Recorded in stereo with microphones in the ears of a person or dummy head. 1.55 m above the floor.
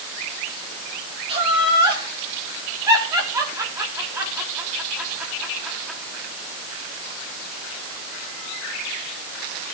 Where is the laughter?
30° right (ahead or behind), 5 m; by 6.0 s centre (ahead or behind), 4 m.